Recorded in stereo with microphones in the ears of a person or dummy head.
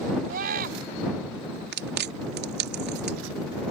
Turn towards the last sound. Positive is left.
turn(degrees=-60)  # may be behind; listen again after turning